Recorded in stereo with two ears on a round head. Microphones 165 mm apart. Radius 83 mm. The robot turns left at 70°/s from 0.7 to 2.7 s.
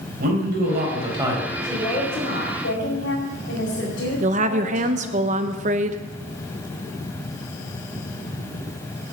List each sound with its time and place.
0.2 s a man speaking: 125° right, 4.5 m; by 1.5 s straight behind, 4.5 m
1.6 s a woman speaking: 175° left, 4.5 m; by 5.2 s 100° left, 4.5 m
4.2 s a woman speaking: 40° right (ahead or behind), 0.9 m